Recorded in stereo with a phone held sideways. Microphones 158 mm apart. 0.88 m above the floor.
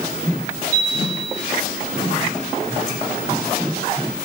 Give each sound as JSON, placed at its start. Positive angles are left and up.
{"t": 0.7, "sound": "a chime", "side_deg": 15, "distance_m": 4.0}